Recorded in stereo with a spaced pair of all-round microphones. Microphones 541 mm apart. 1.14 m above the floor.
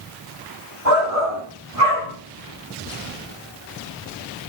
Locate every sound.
0.8 s a shout: 85° right, 9 m; by 2.2 s 80° right, 8.5 m